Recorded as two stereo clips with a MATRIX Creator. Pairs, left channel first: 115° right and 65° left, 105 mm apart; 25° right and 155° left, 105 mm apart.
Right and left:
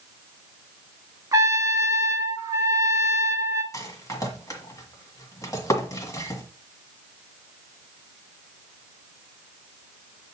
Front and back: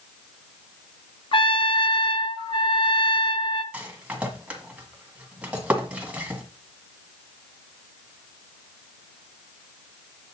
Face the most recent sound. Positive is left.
turn(degrees=-135)